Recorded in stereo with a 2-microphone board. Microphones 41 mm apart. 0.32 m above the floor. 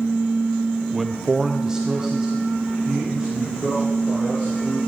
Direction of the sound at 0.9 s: Centre (ahead or behind).